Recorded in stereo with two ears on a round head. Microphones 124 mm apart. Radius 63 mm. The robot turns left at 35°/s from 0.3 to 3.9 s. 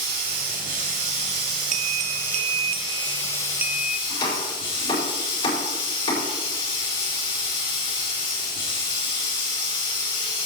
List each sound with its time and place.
0.0 s running water: 95° right, 5.5 m; by 10.5 s 140° left, 5.5 m
1.7 s a bell: 95° right, 0.6 m; by 4.0 s 175° right, 0.6 m
4.1 s chopping: 35° left (ahead or behind), 5 m